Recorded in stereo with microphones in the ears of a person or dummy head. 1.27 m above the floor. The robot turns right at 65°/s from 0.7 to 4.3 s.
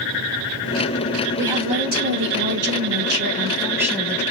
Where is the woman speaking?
170° right, 1.7 m; by 4.2 s 15° left, 1.7 m.